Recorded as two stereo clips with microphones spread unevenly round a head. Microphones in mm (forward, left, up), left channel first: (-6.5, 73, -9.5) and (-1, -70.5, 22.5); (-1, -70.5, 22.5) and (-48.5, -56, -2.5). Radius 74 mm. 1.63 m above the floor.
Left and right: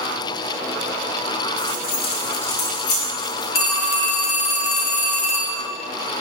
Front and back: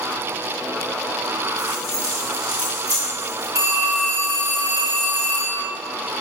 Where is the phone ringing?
95° left, 3 m.